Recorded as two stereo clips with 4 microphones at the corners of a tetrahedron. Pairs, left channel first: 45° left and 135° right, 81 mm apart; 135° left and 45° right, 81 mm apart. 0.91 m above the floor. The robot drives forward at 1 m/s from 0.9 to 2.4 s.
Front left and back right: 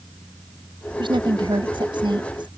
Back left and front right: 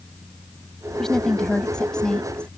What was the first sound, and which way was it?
A woman speaking, 140° right.